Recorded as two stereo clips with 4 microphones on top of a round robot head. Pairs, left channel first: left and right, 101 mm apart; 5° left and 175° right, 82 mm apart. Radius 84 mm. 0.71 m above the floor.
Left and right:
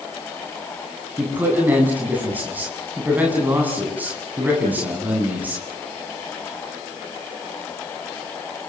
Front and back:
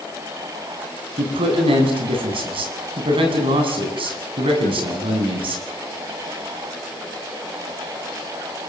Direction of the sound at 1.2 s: 165° right.